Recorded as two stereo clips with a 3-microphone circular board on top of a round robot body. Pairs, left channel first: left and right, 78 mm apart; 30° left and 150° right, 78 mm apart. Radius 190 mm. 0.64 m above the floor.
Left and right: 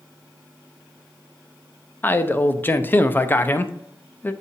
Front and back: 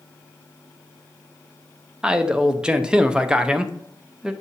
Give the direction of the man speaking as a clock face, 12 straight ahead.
7 o'clock.